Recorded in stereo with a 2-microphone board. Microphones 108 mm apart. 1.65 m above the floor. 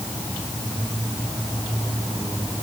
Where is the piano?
No piano in this recording.